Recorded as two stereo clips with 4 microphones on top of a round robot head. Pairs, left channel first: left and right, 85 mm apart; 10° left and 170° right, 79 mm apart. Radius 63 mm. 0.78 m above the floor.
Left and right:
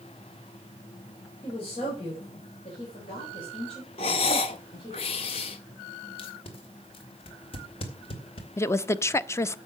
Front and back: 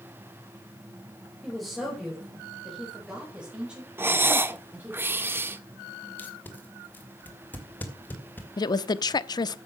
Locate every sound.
1.4 s a woman speaking: 95° left, 5 m; by 5.0 s 120° left, 5 m
4.0 s breathing: 125° left, 0.9 m
6.2 s tape being pulled: 75° left, 2.5 m
8.6 s a woman speaking: 35° left, 0.7 m